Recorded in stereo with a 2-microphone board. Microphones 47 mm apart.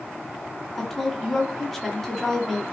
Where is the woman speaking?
5° left (ahead or behind), 1.2 m.